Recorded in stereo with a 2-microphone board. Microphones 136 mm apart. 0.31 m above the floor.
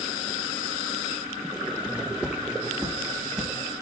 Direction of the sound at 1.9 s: 10° right (ahead or behind).